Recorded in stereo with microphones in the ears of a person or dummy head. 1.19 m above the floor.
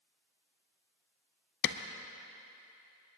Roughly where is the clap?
Left.